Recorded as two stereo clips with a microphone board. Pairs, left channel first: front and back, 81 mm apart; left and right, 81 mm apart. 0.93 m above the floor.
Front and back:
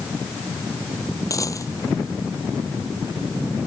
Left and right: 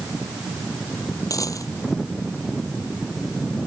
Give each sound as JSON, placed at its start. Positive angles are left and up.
{"t": 1.3, "sound": "a dropped coin", "azimuth_deg": 45}